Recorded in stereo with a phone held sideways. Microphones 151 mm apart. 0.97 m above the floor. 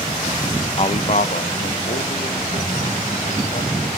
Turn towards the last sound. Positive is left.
turn(degrees=65)  # may be behind; listen again after turning